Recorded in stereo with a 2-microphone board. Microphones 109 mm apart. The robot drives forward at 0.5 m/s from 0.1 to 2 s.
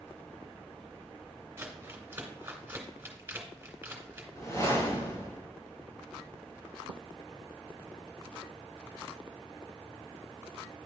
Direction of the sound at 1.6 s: 25° right (ahead or behind).